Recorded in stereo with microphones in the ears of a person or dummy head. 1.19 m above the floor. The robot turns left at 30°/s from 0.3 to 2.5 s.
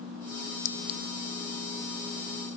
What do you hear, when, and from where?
0.7 s a clink: 60° left (ahead or behind); by 1.0 s 50° left (ahead or behind)